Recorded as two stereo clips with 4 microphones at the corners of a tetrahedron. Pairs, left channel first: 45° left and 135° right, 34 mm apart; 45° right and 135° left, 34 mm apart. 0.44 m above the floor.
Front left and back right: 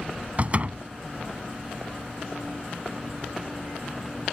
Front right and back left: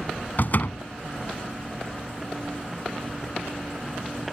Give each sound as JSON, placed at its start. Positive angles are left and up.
{"t": 0.4, "sound": "a door slam", "azimuth_deg": -80}